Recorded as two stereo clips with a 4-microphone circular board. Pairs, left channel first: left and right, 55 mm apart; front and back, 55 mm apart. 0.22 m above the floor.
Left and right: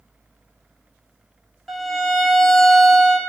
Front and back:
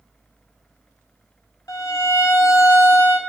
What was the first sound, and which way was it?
A violin, straight ahead.